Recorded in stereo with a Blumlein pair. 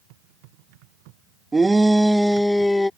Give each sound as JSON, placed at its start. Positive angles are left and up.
{"t": 1.5, "sound": "a shout", "azimuth_deg": -10}